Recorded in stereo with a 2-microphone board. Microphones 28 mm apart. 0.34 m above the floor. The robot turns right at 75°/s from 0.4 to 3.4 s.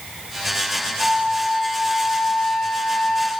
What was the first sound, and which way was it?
A flute, 25° right.